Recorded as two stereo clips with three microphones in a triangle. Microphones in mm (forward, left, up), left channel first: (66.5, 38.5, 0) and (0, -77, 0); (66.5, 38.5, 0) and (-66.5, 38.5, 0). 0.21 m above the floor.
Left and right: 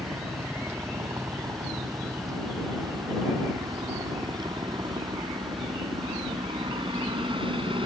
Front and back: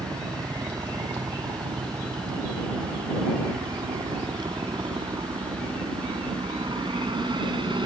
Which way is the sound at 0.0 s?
170° right.